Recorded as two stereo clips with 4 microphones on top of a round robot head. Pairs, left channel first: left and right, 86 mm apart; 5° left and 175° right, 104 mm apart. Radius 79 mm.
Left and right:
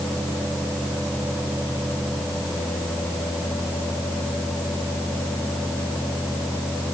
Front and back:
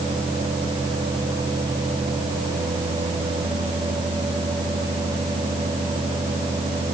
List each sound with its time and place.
Only background noise.